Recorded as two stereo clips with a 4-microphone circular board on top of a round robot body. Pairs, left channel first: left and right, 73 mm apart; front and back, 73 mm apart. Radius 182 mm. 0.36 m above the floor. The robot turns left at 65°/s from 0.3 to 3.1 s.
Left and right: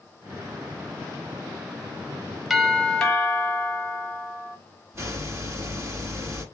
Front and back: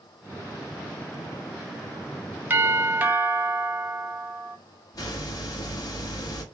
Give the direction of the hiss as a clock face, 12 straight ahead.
1 o'clock.